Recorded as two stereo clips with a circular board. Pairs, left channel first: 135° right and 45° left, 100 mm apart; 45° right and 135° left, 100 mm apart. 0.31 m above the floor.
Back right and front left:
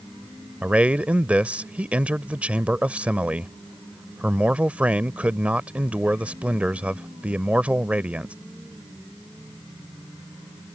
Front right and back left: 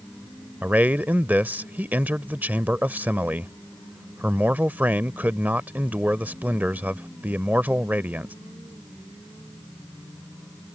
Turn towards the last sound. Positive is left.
turn(degrees=95)